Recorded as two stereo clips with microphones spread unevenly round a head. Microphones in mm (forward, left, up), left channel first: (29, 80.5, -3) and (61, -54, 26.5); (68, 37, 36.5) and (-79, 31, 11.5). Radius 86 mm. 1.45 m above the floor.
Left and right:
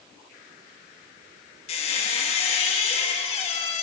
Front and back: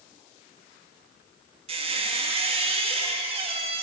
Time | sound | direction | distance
1.7 | a squeak | 145° left | 0.9 m